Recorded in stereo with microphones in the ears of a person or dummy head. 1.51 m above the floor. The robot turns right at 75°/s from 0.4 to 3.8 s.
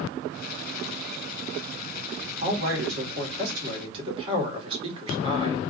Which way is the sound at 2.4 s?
135° right.